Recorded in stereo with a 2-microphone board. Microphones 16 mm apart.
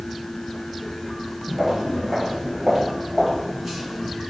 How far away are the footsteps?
About 1.9 m.